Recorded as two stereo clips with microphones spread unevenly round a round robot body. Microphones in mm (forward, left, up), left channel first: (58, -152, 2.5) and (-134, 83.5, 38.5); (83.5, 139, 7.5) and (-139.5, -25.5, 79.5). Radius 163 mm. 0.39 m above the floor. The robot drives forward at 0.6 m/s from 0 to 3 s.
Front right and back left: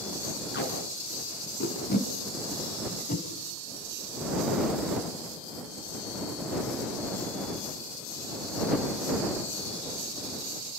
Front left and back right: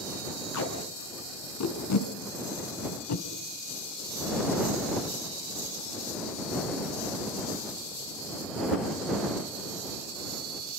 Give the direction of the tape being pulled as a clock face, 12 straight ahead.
12 o'clock.